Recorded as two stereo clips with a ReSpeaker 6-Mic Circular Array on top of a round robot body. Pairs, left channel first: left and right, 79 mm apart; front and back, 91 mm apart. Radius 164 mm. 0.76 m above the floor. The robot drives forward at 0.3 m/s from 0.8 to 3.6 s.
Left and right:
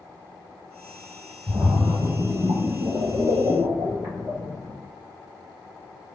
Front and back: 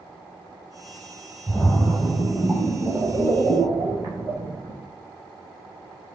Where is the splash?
60° right, 0.6 m; by 4.8 s 145° right, 0.8 m.